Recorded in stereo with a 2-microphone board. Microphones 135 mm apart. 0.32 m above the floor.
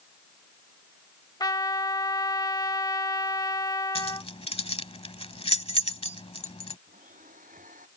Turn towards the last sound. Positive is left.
turn(degrees=-80)